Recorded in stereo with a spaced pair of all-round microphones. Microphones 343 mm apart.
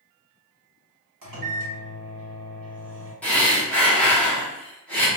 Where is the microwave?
65° right (ahead or behind), 1.0 m.